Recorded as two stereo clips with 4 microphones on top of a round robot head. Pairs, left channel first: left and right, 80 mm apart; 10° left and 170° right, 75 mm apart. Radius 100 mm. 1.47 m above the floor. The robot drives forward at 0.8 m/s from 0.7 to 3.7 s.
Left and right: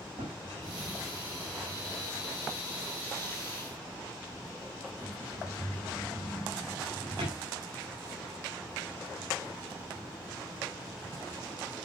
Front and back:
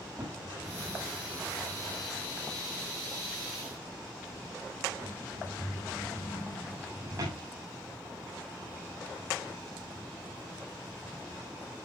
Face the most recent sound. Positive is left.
turn(degrees=-115)